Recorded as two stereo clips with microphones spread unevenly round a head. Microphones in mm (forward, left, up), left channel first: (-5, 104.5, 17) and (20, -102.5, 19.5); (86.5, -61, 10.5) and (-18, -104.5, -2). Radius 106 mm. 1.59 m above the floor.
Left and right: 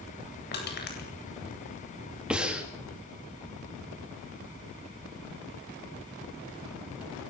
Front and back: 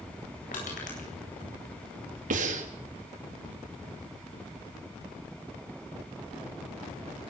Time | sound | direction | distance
0.5 | crushing | 55° left | 8.5 m
2.3 | breathing | 170° right | 3.5 m